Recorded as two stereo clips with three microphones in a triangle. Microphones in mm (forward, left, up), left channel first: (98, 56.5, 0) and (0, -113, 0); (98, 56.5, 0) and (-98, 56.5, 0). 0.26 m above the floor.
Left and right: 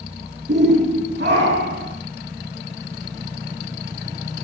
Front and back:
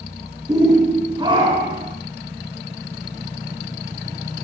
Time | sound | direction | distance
0.5 | a shout | 110° right | 3.5 m